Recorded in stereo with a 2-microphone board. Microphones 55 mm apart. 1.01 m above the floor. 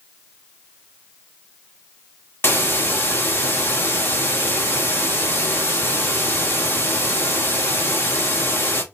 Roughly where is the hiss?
Left.